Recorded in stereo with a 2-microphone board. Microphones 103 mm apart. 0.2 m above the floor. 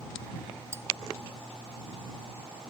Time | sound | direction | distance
0.7 | cutlery clinking | 25° right (ahead or behind) | ?